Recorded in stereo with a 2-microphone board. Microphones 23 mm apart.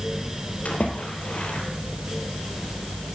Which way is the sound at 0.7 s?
85° left.